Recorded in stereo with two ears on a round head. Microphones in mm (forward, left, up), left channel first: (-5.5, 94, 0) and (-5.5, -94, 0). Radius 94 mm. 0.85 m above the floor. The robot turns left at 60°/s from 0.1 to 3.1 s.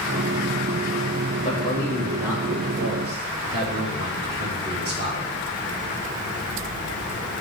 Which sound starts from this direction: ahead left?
A man speaking, at 1.4 s.